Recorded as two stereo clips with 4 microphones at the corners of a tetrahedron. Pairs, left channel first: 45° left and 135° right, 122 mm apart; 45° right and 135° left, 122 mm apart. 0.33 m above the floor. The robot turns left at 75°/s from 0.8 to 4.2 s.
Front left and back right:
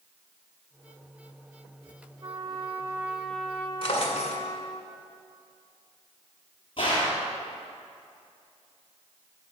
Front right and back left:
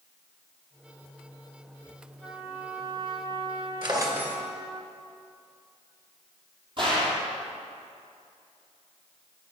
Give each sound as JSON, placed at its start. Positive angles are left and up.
{"t": 2.2, "sound": "a trumpet", "azimuth_deg": -140, "distance_m": 0.9}
{"t": 3.8, "sound": "a drawer", "azimuth_deg": 90, "distance_m": 1.6}
{"t": 6.8, "sound": "a gunshot", "azimuth_deg": 90, "distance_m": 2.5}